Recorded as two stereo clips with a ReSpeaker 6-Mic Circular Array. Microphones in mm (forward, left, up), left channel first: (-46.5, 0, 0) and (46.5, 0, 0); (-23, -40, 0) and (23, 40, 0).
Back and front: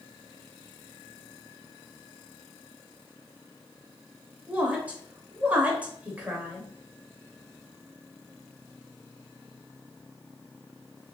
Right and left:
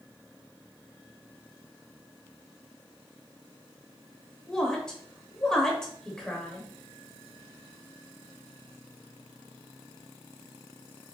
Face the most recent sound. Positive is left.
turn(degrees=-50)